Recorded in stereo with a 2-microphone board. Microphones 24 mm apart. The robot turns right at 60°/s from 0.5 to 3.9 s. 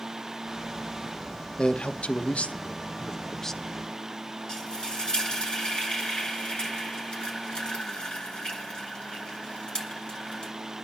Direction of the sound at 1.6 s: 45° left (ahead or behind).